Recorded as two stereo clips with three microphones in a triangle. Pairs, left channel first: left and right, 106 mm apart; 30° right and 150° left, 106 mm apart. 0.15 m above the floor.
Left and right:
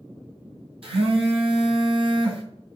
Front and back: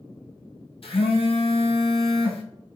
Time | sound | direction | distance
0.8 | a phone buzzing | 60° right | 1.6 m